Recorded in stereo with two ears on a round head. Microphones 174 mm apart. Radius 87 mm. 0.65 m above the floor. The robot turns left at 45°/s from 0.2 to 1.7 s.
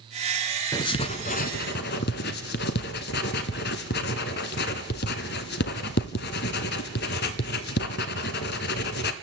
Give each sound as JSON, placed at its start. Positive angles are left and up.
{"t": 0.7, "sound": "writing", "side_deg": 20, "distance_m": 1.1}